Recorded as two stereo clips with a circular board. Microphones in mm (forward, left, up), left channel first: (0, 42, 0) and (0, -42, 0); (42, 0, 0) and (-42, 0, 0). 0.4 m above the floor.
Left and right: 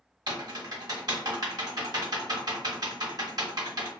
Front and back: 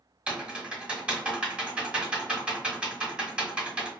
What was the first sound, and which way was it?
Typing on a keyboard, 105° right.